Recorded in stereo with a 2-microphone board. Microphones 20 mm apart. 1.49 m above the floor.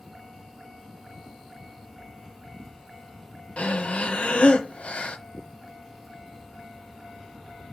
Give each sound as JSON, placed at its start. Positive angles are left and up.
{"t": 3.6, "sound": "breathing", "side_deg": 70, "distance_m": 1.3}